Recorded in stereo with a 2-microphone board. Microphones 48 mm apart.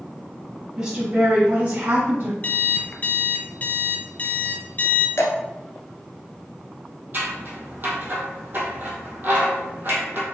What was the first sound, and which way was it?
A woman speaking, 15° right (ahead or behind).